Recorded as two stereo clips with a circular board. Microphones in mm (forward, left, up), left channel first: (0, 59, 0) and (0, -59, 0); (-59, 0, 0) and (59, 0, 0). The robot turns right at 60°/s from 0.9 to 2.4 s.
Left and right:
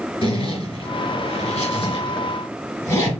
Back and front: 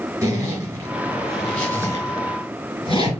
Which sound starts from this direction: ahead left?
A zipper, at 0.2 s.